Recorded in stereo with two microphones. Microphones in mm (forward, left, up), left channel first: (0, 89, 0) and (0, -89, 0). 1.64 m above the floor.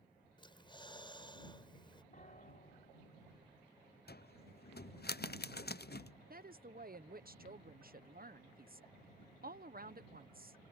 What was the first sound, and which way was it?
Breathing, 25° left (ahead or behind).